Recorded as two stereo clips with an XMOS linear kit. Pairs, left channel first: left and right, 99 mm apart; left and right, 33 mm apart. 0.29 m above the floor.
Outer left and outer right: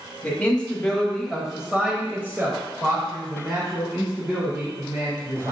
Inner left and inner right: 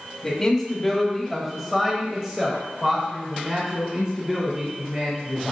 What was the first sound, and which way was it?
A man speaking, 15° left (ahead or behind).